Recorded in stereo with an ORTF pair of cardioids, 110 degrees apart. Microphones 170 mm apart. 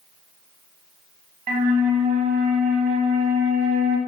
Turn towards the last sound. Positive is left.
turn(degrees=-55)